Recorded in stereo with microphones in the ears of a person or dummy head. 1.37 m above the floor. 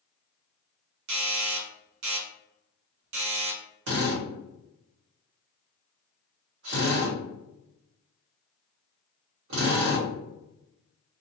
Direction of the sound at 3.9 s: 60° right (ahead or behind).